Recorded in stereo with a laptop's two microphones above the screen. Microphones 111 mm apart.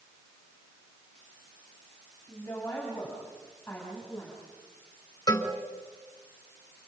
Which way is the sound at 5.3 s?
35° left (ahead or behind).